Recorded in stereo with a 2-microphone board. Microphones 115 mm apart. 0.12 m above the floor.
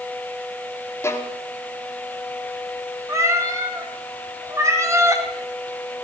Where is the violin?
20° left (ahead or behind), 2 m.